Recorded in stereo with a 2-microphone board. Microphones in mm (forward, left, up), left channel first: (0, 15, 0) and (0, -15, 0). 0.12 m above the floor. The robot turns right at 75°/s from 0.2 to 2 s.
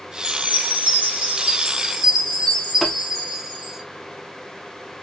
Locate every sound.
0.2 s a chime: 150° right, 2.5 m; by 3.8 s 20° right, 2.5 m
2.8 s tapping: centre (ahead or behind), 3 m